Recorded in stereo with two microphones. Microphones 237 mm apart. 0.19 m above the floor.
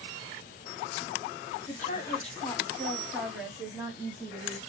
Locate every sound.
1.7 s a woman speaking: 40° left (ahead or behind), 1.2 m; by 4.6 s 25° right (ahead or behind), 1.4 m